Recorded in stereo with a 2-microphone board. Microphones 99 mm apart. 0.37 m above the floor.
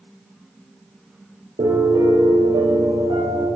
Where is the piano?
85° right, 5.5 m.